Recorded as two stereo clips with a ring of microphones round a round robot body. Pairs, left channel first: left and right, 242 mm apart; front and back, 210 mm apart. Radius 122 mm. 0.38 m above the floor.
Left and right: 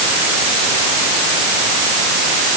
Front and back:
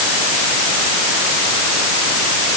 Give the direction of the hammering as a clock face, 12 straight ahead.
I don't hear hammering.